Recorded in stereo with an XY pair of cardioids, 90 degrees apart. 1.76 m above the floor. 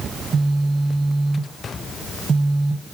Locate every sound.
0.1 s a phone buzzing: 45° right, 1.3 m